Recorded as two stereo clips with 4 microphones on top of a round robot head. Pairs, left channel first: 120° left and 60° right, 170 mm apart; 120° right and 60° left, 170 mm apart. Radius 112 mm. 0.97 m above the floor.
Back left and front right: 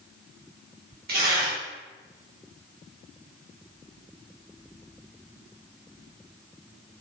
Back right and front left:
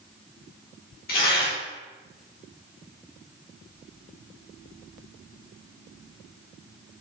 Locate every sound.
1.1 s tearing paper: 90° right, 2.5 m